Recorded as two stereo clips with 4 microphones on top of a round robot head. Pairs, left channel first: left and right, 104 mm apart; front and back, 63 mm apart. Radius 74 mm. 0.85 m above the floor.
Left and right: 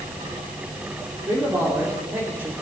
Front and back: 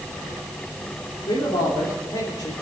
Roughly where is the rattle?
No rattle in this recording.